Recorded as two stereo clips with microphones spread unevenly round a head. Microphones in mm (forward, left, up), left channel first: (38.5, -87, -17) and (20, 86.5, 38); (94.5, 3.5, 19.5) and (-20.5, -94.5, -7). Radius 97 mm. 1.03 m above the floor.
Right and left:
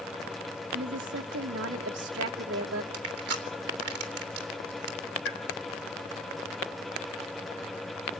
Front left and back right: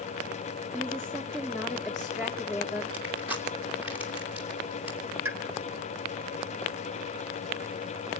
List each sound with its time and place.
0.7 s a woman speaking: 130° left, 2.0 m
2.9 s crushing: 140° left, 3 m
5.2 s a pop: 65° right, 2.5 m